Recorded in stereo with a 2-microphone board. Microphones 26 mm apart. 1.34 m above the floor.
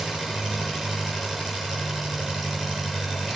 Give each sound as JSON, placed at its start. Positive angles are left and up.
{"t": 0.0, "sound": "an engine running", "side_deg": -10, "distance_m": 8.0}